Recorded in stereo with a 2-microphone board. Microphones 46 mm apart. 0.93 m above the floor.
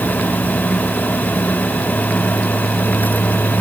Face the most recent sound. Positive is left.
No sound to turn to.